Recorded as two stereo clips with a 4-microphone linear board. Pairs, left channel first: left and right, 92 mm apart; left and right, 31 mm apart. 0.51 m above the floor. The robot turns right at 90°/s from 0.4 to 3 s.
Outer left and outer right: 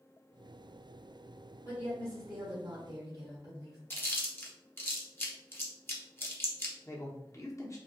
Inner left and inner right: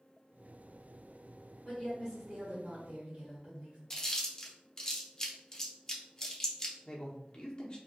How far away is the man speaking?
About 0.7 m.